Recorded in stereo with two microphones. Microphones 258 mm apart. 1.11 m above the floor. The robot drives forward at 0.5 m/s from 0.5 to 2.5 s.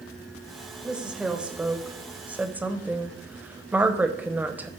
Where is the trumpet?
I don't hear a trumpet.